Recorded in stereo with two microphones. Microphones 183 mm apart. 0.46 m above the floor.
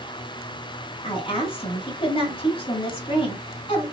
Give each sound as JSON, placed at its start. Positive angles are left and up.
{"t": 1.0, "sound": "a woman speaking", "side_deg": 30, "distance_m": 2.0}